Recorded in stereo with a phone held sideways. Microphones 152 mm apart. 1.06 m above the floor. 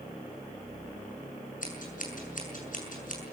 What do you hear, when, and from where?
1.6 s scissors: 60° left (ahead or behind), 6.5 m